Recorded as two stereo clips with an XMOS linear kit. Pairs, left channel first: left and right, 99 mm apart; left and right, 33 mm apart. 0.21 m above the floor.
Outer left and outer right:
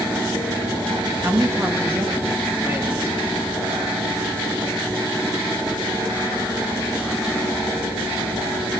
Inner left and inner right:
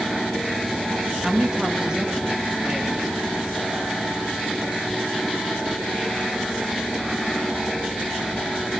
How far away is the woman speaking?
About 2.5 m.